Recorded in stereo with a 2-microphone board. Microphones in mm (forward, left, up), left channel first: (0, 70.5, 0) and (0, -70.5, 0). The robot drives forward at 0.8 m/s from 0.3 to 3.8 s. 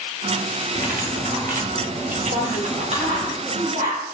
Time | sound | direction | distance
0.8 | cutlery clinking | 90° right | 2.5 m
2.3 | a woman speaking | 65° right (ahead or behind) | 7 m